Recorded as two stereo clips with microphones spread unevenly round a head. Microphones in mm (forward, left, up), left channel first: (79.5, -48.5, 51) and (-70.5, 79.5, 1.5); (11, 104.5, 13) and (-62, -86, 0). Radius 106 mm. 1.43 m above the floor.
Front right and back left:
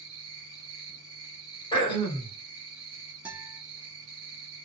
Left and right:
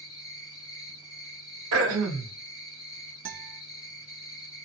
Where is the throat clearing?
110° right, 1.2 m.